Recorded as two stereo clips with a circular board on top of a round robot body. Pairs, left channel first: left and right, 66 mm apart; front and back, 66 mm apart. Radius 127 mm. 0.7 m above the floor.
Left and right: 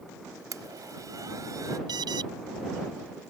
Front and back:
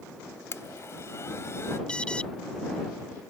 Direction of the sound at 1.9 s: 80° right.